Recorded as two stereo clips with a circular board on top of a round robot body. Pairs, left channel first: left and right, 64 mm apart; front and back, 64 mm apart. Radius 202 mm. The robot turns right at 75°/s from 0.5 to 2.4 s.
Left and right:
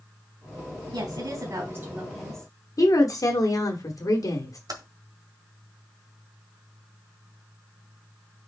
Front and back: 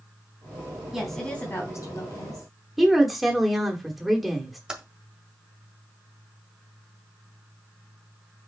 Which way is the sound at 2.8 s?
95° left.